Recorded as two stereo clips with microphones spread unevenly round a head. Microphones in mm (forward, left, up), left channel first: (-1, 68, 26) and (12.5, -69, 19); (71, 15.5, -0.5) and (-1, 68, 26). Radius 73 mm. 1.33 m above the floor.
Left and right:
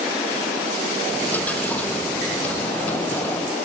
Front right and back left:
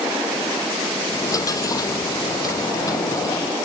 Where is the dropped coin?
15° left.